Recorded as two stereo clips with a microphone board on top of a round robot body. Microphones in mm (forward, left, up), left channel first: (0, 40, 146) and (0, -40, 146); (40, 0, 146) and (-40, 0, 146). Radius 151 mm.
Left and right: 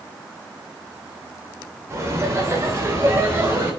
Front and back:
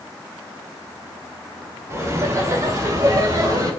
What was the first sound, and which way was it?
Laughter, 135° right.